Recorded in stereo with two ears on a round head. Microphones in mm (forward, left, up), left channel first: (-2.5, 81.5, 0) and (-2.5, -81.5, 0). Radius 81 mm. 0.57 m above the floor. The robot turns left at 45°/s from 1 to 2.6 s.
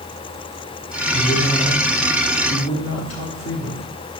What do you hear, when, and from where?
1.1 s a man speaking: 155° left, 2 m; by 3.8 s 90° left, 2 m